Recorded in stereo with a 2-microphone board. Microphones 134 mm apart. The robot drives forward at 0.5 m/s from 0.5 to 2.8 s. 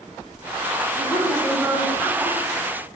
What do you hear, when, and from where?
1.0 s a woman speaking: 5° left (ahead or behind), 1.9 m